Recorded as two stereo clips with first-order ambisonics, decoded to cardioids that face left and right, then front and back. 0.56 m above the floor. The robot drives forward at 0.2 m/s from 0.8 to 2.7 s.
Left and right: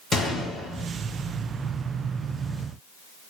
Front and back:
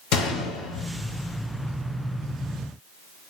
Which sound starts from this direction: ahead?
A gunshot, at 0.1 s.